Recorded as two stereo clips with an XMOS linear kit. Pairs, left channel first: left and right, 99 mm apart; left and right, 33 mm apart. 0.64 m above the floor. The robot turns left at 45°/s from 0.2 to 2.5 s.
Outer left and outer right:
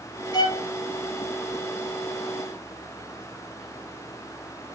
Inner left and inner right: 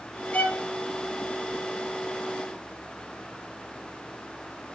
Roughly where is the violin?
Left.